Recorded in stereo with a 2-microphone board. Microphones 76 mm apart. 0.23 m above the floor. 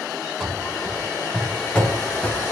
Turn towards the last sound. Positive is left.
turn(degrees=20)  # may be behind; listen again after turning